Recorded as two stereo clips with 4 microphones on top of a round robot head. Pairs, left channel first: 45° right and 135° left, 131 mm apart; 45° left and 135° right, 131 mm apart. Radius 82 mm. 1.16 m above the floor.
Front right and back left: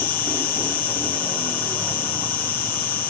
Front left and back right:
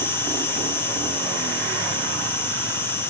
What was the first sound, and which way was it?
An insect, 35° right.